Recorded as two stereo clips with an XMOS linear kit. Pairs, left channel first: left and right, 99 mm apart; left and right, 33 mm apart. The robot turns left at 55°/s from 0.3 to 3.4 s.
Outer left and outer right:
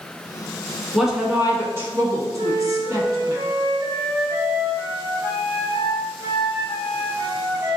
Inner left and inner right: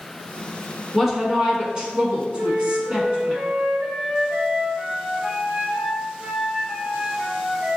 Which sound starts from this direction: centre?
A woman speaking, at 0.9 s.